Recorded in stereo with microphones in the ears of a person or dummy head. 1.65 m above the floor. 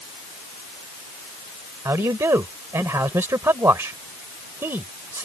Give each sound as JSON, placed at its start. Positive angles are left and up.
{"t": 1.9, "sound": "a man speaking", "side_deg": -10}